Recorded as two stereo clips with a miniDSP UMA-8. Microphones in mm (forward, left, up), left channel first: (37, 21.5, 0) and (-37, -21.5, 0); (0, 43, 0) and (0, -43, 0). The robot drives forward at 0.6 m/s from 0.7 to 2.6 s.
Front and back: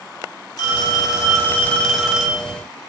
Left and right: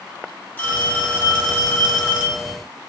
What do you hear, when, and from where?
0.6 s a phone ringing: 30° left, 0.9 m; by 2.5 s 145° left, 0.8 m